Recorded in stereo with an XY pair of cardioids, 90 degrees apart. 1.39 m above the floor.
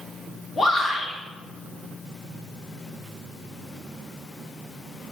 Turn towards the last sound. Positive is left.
turn(degrees=35)